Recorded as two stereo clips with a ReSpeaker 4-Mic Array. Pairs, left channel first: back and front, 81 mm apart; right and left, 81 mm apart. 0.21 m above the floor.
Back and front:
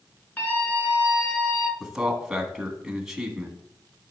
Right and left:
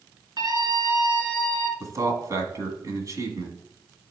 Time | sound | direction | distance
0.4 | a scream | 110° left | 3 m
1.8 | a man speaking | 80° left | 1.8 m